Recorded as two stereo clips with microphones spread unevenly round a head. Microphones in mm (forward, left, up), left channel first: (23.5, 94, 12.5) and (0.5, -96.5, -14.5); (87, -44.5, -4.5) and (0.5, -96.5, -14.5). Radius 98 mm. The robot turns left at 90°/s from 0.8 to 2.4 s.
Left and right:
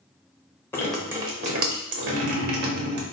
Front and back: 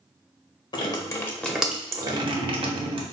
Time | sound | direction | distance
0.7 | dripping | 15° left | 0.8 m